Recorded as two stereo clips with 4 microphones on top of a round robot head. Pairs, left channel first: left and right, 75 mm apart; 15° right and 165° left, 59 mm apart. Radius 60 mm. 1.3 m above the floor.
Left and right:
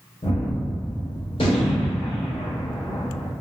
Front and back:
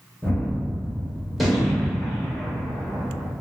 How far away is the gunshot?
About 0.8 m.